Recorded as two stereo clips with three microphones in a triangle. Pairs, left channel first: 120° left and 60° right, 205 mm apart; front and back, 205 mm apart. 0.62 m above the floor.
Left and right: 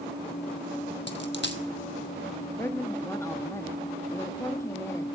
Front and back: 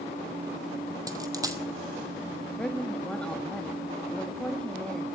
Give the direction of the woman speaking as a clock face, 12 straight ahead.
10 o'clock.